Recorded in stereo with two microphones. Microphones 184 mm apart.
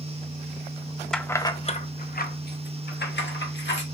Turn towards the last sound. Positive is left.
turn(degrees=80)